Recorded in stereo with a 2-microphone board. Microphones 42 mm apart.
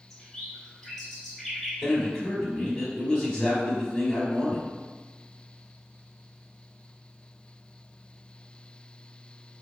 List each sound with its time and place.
0.1 s a bird: 5° left (ahead or behind), 1.7 m
1.8 s a man speaking: 10° left (ahead or behind), 1.2 m